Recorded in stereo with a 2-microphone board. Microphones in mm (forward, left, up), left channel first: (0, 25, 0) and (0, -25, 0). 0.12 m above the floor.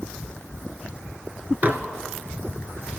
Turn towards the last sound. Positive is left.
turn(degrees=-40)  # may be behind; listen again after turning